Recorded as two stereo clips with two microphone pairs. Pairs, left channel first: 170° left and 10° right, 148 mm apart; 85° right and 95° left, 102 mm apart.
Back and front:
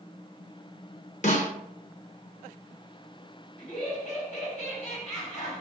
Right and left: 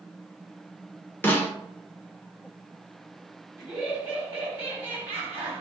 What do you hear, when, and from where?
1.2 s a snare drum: 155° right, 0.7 m
3.6 s laughter: 165° left, 1.7 m